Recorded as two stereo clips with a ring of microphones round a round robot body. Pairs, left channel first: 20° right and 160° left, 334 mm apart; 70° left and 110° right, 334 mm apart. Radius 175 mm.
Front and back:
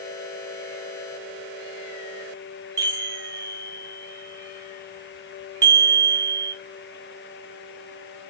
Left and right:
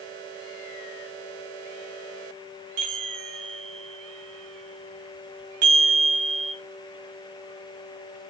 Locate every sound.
2.8 s a chime: 125° right, 1.2 m